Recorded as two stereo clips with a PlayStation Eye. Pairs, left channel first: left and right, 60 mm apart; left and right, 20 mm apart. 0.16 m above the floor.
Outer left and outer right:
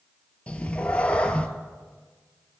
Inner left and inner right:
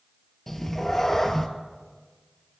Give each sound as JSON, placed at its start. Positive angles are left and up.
{"t": 0.5, "sound": "a cat meowing", "side_deg": 20, "distance_m": 0.5}